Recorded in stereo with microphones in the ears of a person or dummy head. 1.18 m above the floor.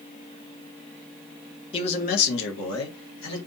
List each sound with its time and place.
1.7 s a man speaking: 25° left (ahead or behind), 0.8 m; by 3.4 s 75° left (ahead or behind), 1.3 m